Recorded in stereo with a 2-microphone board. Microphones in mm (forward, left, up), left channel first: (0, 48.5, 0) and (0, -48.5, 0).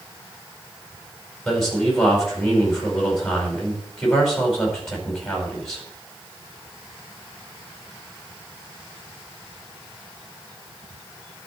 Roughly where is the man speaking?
Centre.